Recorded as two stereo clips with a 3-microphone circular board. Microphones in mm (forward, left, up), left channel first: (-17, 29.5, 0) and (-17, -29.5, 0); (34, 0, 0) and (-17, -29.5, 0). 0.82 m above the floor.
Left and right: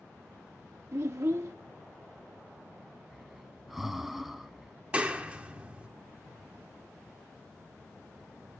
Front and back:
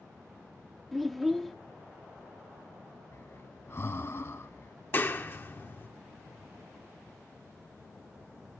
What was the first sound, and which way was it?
A child speaking, 60° right.